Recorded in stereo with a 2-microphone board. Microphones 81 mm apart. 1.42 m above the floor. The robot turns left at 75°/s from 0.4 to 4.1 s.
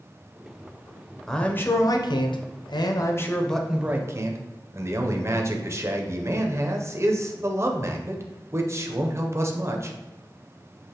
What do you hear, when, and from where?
1.3 s a man speaking: 175° left, 0.6 m; by 10.0 s 40° right, 0.6 m